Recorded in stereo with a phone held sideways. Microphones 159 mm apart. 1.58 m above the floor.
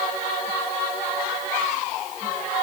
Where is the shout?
I don't hear a shout.